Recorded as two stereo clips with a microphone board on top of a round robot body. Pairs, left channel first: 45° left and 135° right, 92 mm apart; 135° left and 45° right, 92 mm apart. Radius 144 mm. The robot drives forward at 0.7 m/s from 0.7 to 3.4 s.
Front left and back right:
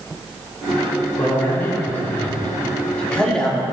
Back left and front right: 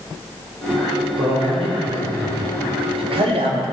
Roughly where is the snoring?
I don't hear snoring.